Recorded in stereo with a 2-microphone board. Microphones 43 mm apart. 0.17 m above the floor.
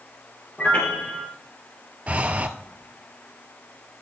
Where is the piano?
35° left (ahead or behind), 1.7 m.